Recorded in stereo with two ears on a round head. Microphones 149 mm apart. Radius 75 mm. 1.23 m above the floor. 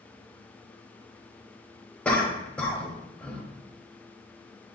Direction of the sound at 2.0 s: 5° left (ahead or behind).